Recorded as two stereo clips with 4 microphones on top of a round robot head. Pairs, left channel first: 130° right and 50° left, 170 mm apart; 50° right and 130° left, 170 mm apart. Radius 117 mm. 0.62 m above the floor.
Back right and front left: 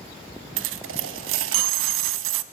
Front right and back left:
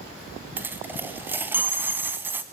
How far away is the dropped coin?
About 1.0 m.